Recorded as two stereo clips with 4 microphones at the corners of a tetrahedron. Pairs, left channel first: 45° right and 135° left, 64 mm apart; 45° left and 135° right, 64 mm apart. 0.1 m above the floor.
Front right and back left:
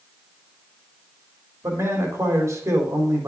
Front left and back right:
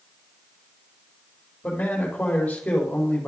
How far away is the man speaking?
About 4 m.